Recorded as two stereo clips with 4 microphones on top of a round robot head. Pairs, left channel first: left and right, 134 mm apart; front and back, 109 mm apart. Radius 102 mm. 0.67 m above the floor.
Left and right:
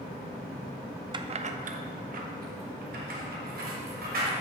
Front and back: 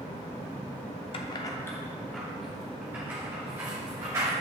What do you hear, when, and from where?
1.1 s keys jangling: 35° right, 0.5 m; by 4.3 s 110° right, 2.5 m